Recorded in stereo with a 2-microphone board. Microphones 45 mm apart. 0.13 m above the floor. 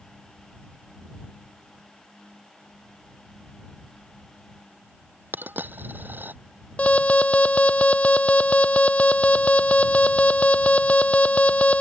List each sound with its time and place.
5.3 s a dropped coin: 50° right (ahead or behind)
6.8 s an alarm: 30° left (ahead or behind)